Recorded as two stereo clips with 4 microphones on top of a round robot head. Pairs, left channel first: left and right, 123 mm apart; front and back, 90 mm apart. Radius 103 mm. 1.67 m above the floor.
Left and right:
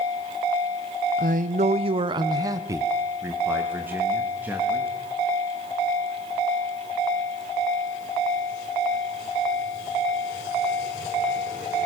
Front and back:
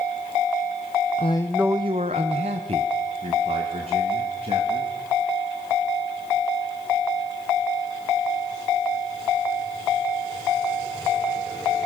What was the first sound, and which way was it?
A man speaking, 50° right.